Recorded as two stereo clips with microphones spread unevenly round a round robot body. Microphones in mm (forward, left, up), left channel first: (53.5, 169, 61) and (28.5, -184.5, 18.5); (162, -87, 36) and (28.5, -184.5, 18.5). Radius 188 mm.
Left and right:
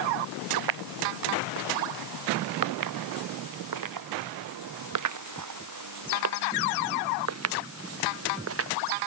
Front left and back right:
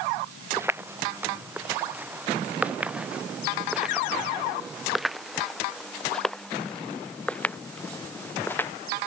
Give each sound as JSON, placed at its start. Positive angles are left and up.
{"t": 0.6, "sound": "footsteps", "azimuth_deg": -70}